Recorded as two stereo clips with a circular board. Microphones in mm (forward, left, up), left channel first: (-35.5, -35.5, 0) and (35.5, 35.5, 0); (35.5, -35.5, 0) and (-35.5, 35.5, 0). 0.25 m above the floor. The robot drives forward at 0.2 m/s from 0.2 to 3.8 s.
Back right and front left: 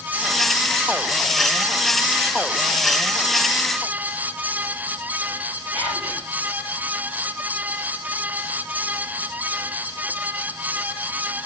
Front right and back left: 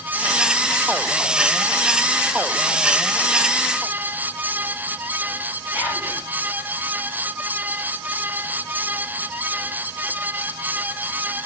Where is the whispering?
130° right, 3 m.